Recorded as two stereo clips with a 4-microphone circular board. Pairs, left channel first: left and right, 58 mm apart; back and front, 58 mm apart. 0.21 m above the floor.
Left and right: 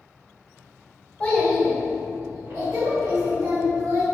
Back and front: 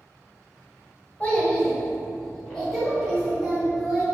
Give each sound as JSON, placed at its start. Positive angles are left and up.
{"t": 1.2, "sound": "a child speaking", "azimuth_deg": 135, "distance_m": 0.8}